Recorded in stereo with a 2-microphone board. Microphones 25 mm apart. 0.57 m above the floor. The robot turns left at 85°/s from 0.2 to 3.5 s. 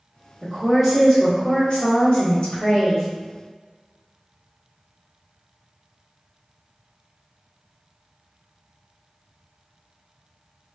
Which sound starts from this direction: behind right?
A woman speaking, at 0.4 s.